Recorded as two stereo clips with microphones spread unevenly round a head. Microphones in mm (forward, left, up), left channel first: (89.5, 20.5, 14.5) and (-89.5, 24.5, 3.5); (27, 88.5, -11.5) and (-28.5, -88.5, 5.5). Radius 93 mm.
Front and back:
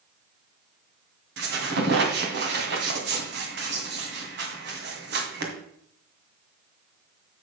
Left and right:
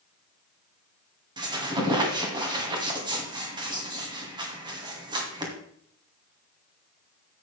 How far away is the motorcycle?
I don't hear a motorcycle.